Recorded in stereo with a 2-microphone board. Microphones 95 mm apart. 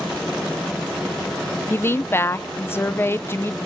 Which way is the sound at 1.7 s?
25° left (ahead or behind).